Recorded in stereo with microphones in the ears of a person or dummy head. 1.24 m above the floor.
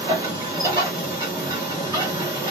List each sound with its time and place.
0.0 s a machine running: 20° right (ahead or behind), 1.8 m